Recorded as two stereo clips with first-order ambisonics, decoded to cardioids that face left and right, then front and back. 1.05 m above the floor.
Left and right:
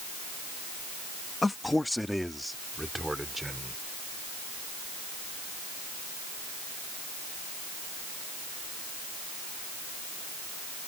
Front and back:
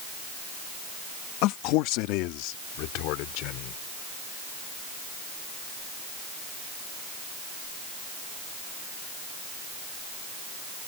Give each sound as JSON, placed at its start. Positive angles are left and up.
{"t": 1.4, "sound": "a man speaking", "azimuth_deg": 10}